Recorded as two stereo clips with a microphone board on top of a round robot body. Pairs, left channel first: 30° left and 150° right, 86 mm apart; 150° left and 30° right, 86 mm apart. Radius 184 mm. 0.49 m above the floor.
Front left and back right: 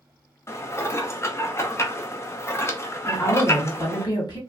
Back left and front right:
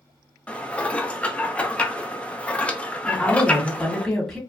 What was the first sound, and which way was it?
Dishes clattering, 80° left.